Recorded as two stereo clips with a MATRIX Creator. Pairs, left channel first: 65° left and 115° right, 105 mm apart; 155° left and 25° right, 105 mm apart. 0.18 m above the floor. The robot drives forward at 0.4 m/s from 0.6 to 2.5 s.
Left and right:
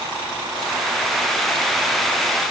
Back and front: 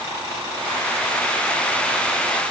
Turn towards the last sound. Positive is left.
No sound to turn to.